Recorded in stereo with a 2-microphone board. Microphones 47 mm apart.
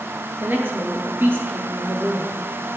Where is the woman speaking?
50° right (ahead or behind), 2.0 m.